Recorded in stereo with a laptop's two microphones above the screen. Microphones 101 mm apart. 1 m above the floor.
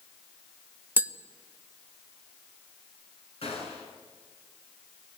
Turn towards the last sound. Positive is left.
turn(degrees=75)  # may be behind; listen again after turning